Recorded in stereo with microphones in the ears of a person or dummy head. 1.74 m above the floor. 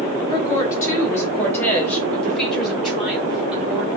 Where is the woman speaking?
25° left (ahead or behind), 5 m; by 3.9 s 5° right (ahead or behind), 6 m.